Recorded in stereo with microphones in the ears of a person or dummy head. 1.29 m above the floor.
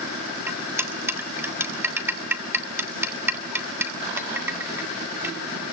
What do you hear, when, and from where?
0.5 s cutlery clinking: 15° right (ahead or behind), 1.5 m